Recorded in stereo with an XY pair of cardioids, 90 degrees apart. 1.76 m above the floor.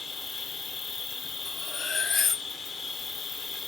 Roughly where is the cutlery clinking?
Ahead left.